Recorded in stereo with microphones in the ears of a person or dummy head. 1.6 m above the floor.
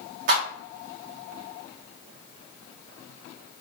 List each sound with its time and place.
0.3 s a clap: 55° right (ahead or behind), 2 m